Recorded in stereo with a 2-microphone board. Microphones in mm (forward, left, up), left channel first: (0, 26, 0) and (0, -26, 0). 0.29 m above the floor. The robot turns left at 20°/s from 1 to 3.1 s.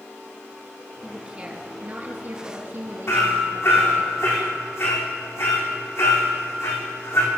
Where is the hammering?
60° left (ahead or behind), 4 m.